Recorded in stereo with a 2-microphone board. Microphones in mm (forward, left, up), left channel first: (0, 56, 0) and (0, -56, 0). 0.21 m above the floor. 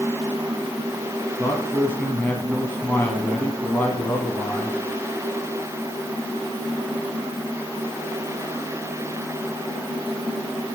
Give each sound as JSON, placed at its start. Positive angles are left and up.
{"t": 1.4, "sound": "a man speaking", "side_deg": 15, "distance_m": 1.4}